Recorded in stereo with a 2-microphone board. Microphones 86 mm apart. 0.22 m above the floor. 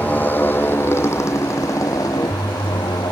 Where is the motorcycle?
20° left (ahead or behind); by 3.1 s 55° left (ahead or behind).